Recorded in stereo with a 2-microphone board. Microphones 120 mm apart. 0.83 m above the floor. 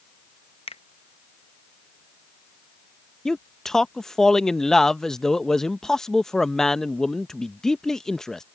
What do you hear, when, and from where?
0.7 s a finger snap: 50° left (ahead or behind)
3.2 s a man speaking: 5° left (ahead or behind)